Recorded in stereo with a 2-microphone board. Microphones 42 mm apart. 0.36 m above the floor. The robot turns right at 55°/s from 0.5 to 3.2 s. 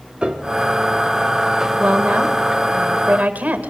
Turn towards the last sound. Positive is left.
turn(degrees=-70)